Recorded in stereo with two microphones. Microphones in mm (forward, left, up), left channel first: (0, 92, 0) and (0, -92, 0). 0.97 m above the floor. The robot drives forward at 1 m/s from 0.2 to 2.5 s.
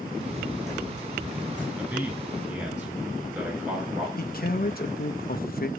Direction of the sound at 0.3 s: 40° right (ahead or behind).